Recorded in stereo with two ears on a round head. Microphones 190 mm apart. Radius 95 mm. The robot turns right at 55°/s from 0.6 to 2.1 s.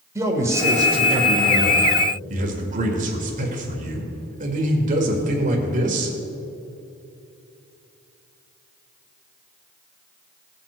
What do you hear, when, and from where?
0.1 s a man speaking: 155° right, 1.7 m; by 6.2 s 75° right, 1.7 m